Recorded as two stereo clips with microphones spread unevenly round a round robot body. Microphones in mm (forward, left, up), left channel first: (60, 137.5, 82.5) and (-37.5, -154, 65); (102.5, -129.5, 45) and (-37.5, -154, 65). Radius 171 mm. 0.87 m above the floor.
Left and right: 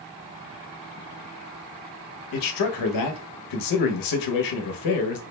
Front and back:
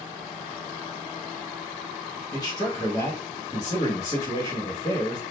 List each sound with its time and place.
2.3 s a man speaking: 75° left, 0.7 m